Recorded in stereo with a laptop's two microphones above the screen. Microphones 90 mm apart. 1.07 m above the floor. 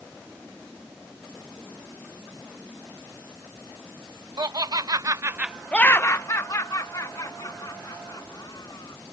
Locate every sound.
4.4 s laughter: 50° right (ahead or behind); by 9.0 s 50° left (ahead or behind)